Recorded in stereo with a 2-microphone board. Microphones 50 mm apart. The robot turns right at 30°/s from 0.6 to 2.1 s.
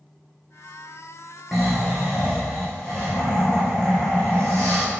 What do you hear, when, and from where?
1.5 s snoring: 5° right (ahead or behind), 2 m; by 4.8 s 15° left (ahead or behind), 2 m